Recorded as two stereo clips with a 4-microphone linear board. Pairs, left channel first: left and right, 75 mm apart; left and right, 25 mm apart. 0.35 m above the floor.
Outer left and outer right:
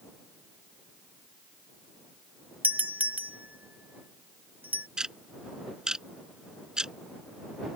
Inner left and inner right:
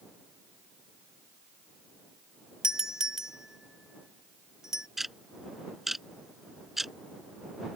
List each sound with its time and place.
2.6 s a doorbell: 20° right (ahead or behind)
5.0 s ticking: 10° right (ahead or behind)